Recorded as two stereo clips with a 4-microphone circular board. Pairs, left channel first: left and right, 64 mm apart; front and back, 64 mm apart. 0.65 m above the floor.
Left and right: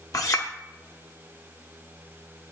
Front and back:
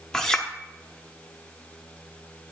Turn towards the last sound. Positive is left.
turn(degrees=80)